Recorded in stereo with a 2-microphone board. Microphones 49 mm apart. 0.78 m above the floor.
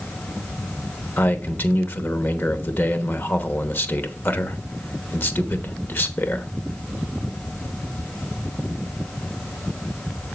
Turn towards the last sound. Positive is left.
turn(degrees=45)  # may be behind; listen again after turning